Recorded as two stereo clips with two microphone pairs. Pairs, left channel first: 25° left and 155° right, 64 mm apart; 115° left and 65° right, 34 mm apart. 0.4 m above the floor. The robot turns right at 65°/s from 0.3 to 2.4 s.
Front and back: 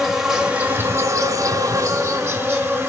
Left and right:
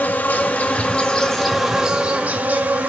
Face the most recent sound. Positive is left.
turn(degrees=-100)